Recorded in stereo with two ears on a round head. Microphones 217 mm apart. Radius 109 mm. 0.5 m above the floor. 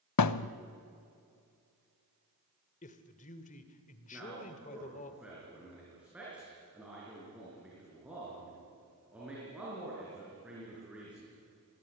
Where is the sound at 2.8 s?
30° left (ahead or behind), 2.0 m.